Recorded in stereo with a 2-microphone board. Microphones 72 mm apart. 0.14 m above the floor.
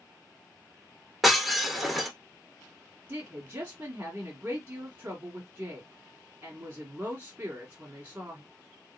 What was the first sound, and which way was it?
Breaking glass, centre (ahead or behind).